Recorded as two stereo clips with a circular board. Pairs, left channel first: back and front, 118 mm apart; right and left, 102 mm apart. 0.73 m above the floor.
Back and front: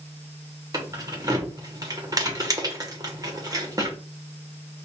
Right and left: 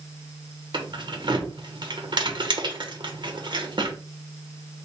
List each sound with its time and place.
0.7 s keys jangling: 55° left, 1.0 m